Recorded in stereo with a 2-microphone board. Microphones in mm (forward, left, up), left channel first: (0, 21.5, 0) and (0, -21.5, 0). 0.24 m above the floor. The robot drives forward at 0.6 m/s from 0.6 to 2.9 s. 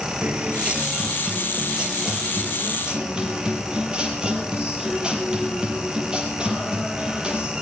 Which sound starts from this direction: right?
A guitar, at 0.2 s.